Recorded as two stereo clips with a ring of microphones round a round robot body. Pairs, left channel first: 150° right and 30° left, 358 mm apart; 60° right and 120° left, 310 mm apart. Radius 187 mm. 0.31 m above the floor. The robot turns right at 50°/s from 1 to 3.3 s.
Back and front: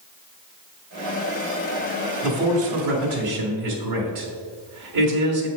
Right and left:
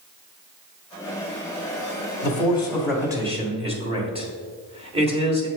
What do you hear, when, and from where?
2.2 s a man speaking: 5° right, 1.7 m; by 5.5 s 50° left, 1.7 m